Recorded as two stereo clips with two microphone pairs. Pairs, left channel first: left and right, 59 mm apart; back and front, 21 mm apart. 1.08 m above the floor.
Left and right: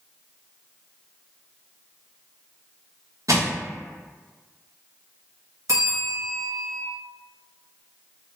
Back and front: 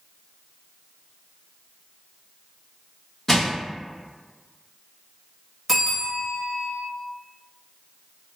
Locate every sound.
3.3 s crushing: 110° right, 1.1 m
5.7 s a bell: 85° right, 1.2 m